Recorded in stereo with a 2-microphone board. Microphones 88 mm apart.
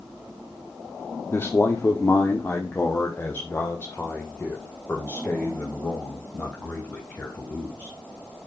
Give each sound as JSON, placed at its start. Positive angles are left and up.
{"t": 1.3, "sound": "a man speaking", "side_deg": 30, "distance_m": 1.8}